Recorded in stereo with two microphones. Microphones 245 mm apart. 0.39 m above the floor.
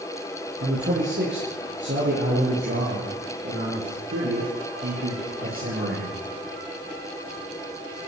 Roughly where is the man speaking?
Right.